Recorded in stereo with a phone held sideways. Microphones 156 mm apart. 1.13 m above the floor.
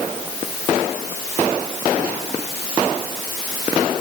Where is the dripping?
I don't hear dripping.